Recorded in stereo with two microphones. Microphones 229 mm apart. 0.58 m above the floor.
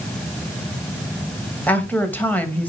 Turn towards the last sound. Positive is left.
turn(degrees=5)  # may be behind; listen again after turning